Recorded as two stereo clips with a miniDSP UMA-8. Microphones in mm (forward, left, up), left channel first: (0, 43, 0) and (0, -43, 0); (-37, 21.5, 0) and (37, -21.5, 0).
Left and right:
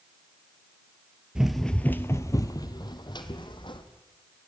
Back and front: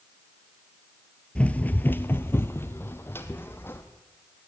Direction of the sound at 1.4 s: 155° right.